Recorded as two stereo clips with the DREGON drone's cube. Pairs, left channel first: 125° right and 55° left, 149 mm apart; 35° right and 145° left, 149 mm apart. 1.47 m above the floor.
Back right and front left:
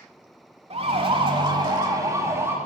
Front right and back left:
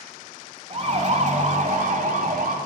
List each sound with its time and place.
0.7 s a siren: 100° left, 3.5 m; by 2.6 s 130° left, 4.5 m